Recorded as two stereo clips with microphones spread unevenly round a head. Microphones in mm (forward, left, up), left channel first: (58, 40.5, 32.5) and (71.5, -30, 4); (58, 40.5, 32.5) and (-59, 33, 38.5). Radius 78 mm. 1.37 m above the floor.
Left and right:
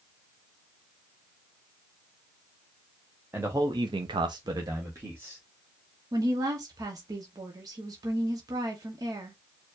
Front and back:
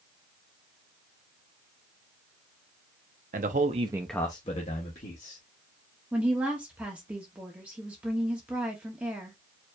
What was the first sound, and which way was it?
A man speaking, 155° right.